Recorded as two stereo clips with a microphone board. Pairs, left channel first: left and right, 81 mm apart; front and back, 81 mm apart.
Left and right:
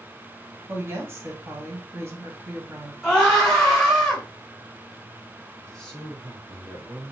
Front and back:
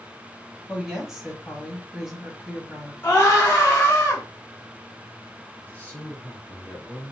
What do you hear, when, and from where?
0.7 s a woman speaking: 100° right, 1.2 m
3.0 s a scream: 15° right, 1.0 m
5.6 s a man speaking: 25° left, 1.3 m